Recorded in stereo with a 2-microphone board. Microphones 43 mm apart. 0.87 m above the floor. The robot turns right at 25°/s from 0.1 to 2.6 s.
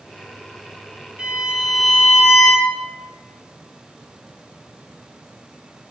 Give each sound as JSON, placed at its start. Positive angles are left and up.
{"t": 1.2, "sound": "a violin", "azimuth_deg": -25, "distance_m": 1.3}